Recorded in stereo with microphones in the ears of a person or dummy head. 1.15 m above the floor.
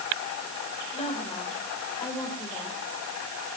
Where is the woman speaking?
35° left (ahead or behind), 5.5 m; by 2.8 s 15° left (ahead or behind), 6 m.